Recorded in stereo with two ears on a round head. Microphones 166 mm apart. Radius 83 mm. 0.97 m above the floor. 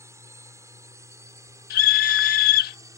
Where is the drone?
15° right (ahead or behind).